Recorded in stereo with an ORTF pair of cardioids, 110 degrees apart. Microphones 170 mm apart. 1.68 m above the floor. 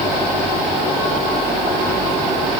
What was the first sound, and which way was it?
Only background noise.